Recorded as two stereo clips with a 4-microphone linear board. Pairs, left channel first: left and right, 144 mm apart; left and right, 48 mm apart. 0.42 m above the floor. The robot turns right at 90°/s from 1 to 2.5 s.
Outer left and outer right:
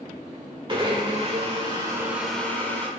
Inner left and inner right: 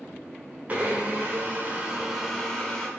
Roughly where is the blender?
Behind right.